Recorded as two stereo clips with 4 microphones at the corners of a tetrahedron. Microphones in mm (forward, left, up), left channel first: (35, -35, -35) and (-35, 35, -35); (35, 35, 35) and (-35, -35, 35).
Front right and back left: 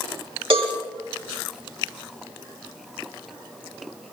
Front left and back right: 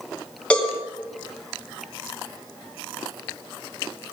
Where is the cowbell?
125° left, 4 m.